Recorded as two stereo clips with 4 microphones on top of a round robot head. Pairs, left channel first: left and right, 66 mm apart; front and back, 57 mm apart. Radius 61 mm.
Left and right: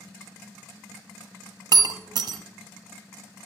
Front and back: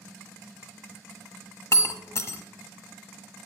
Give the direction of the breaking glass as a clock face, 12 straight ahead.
2 o'clock.